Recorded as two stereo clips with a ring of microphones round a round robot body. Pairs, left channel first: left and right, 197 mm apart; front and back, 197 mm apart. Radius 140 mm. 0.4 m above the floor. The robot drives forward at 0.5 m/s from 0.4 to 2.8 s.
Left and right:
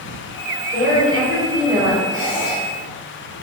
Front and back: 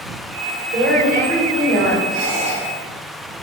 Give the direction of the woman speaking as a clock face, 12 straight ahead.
6 o'clock.